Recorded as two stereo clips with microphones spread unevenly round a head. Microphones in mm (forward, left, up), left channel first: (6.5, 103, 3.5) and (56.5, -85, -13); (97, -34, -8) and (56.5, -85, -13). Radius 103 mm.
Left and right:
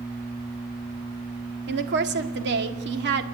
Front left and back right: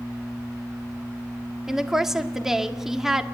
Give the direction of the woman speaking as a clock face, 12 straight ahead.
2 o'clock.